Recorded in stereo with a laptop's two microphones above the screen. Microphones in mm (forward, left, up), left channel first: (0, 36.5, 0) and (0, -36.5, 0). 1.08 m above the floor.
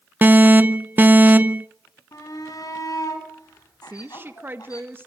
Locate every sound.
0.2 s an alarm: 25° right (ahead or behind), 0.6 m
2.1 s a shout: 55° left (ahead or behind), 7.5 m
3.8 s a woman speaking: 30° right (ahead or behind), 1.6 m